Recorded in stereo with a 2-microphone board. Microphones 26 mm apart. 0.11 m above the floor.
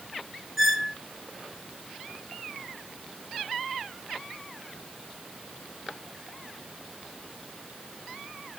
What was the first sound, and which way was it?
A squeak, centre (ahead or behind).